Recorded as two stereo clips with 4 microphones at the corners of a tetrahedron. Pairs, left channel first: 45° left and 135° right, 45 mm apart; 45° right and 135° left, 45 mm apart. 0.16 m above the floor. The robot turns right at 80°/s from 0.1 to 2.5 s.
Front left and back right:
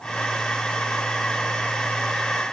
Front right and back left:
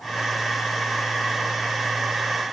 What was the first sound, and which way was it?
Only background noise.